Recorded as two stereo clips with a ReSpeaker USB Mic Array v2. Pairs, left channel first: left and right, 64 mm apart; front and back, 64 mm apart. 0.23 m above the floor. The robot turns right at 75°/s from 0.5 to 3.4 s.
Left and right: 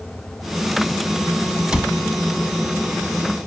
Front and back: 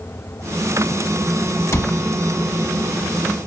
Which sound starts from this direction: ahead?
A cupboard door, at 1.7 s.